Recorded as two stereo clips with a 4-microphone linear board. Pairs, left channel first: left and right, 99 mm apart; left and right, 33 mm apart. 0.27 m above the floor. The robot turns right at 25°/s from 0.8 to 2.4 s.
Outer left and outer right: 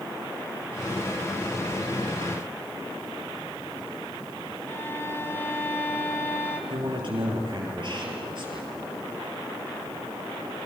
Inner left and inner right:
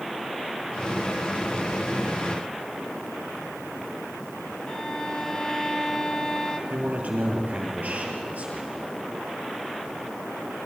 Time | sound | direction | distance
4.7 | a violin | 25° left (ahead or behind) | 2 m
6.7 | a man speaking | 55° right (ahead or behind) | 7 m